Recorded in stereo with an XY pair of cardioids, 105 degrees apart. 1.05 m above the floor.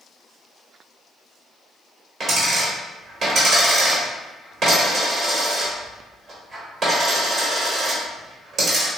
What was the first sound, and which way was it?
A dropped coin, 45° right.